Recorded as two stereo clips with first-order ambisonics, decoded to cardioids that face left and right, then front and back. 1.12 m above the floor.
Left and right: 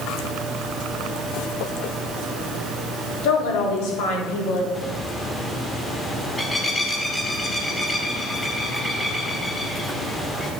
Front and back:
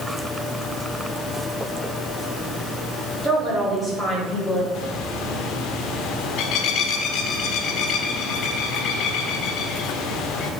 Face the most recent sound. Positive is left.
turn(degrees=10)